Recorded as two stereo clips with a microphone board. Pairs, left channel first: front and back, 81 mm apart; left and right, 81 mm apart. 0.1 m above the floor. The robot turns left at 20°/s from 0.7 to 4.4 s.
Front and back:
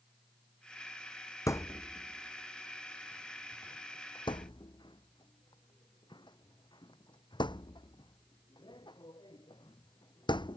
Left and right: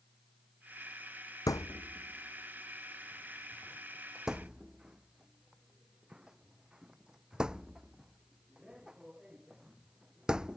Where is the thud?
50° left; by 10.6 s 10° right.